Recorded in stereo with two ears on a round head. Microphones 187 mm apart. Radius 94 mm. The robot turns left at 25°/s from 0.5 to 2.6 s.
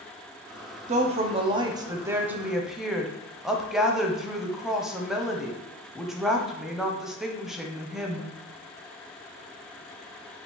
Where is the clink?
No clink in this recording.